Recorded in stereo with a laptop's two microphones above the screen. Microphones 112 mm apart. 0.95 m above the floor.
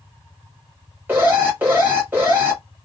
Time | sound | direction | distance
1.1 | an alarm | 15° right (ahead or behind) | 1.3 m